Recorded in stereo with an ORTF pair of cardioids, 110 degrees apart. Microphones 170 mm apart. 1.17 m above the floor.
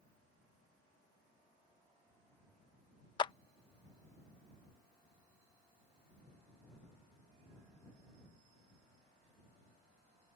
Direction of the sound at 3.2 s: 30° left.